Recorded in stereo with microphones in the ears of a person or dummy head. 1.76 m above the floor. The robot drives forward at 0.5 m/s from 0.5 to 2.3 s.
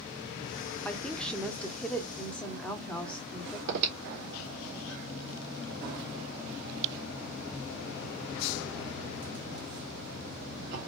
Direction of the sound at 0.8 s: Centre (ahead or behind).